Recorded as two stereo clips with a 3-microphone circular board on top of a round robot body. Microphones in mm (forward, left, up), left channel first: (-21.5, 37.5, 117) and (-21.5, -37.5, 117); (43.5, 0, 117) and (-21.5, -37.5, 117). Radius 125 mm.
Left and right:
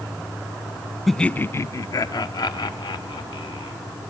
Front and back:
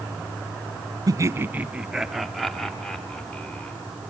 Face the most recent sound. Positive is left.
turn(degrees=105)